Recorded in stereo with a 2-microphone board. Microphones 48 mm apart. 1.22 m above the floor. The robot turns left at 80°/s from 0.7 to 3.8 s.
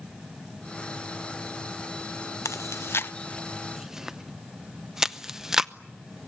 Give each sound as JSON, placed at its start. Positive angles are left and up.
{"t": 2.5, "sound": "chewing", "side_deg": 75, "distance_m": 0.6}